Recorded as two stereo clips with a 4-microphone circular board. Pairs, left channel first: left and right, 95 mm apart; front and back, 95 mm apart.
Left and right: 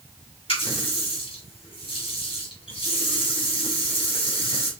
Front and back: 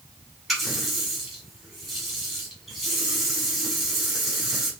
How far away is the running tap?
About 2.5 m.